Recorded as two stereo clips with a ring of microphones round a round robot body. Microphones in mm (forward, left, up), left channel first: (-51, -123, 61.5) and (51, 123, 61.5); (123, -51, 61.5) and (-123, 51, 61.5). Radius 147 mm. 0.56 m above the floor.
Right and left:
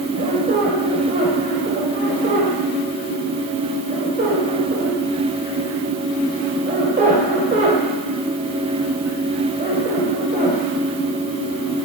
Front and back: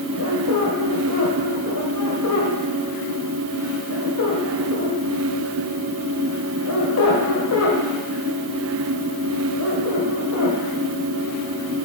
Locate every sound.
0.2 s a squeak: 5° left, 2.0 m